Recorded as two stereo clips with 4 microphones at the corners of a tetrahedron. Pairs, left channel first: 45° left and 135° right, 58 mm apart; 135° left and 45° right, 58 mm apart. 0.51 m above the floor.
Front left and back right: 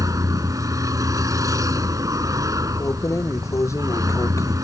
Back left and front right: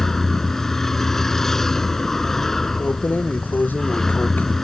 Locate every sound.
0.0 s a vehicle: 145° right
2.8 s keys jangling: 75° left